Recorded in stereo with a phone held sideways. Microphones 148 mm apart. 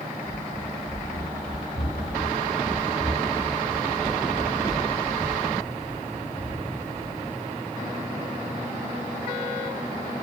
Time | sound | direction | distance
0.2 | running footsteps | 55° left (ahead or behind) | 7 m